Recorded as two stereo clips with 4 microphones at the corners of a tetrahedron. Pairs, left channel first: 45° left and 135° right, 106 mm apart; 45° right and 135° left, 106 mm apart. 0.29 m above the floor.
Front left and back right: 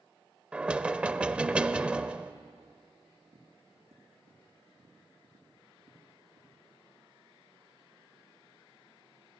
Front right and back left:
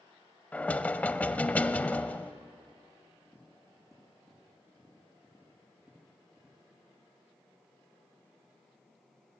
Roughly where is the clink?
No clink in this recording.